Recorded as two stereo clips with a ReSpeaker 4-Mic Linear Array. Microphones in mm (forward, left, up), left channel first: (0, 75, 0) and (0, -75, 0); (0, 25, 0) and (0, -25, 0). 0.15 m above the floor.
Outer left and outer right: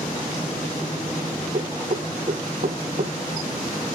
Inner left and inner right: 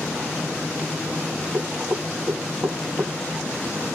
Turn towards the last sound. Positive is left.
turn(degrees=-55)  # may be behind; listen again after turning